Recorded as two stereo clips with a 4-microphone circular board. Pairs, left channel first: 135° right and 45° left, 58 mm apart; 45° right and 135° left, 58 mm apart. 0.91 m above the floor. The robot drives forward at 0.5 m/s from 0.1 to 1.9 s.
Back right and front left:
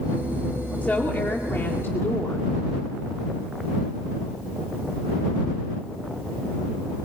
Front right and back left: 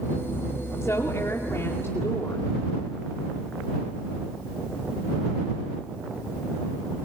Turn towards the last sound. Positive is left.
turn(degrees=-90)